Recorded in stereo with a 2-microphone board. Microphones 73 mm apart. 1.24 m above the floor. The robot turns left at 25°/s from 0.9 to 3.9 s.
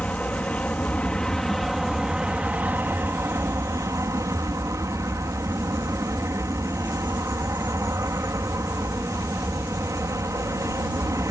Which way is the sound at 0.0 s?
20° left.